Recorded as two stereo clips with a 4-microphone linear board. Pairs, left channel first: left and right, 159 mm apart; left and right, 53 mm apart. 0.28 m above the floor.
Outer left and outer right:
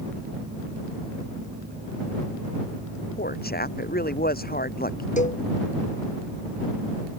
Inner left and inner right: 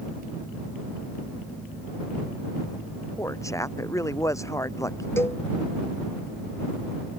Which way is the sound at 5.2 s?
50° left (ahead or behind).